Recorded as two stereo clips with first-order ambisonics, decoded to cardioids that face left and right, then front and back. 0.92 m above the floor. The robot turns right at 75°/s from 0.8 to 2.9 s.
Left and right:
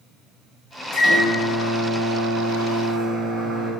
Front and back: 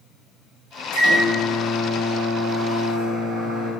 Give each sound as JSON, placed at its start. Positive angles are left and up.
{"t": 0.9, "sound": "a microwave", "azimuth_deg": 20, "distance_m": 2.5}